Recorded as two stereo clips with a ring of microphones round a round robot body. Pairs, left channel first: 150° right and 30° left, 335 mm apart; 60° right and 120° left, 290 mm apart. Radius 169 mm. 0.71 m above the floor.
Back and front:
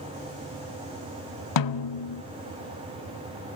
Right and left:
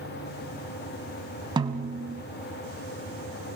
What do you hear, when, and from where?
1.6 s a snare drum: 165° right, 0.8 m